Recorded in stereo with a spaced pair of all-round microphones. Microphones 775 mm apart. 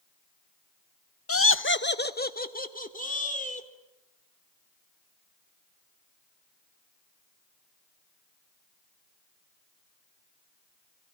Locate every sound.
1.3 s laughter: 20° left (ahead or behind), 0.5 m; by 3.7 s 10° left (ahead or behind), 3.5 m